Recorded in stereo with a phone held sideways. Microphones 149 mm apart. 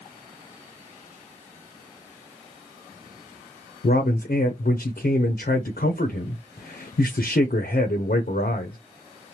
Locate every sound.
3.8 s a man speaking: 80° left, 0.5 m